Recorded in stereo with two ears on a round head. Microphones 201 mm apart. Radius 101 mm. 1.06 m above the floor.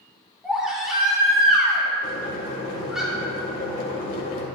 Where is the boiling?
40° left (ahead or behind), 2 m.